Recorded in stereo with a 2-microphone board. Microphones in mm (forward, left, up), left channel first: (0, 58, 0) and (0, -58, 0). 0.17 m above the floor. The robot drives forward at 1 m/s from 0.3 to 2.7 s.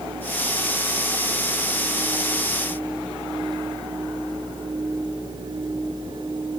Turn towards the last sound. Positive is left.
No sound to turn to.